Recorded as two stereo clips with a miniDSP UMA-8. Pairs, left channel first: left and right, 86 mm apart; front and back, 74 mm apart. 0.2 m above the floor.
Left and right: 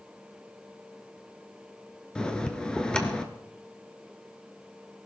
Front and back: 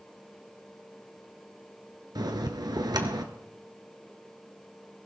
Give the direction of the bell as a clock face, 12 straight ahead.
6 o'clock.